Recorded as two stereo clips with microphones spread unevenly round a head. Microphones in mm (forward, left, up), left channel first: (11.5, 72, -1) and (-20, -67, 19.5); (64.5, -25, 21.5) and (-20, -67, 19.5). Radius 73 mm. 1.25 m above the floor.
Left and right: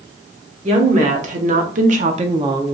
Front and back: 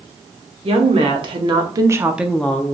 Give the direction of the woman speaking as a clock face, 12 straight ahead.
5 o'clock.